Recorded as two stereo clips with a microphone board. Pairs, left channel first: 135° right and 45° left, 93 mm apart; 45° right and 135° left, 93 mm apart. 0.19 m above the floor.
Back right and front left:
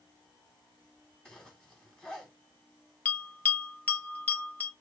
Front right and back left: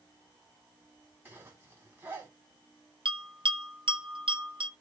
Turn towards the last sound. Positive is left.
turn(degrees=155)